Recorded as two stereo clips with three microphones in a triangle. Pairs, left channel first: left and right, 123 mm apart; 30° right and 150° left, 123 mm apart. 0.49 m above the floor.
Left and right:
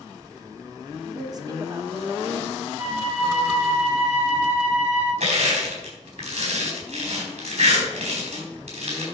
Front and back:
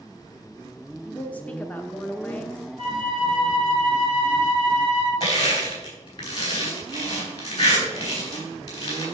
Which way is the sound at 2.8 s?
165° right.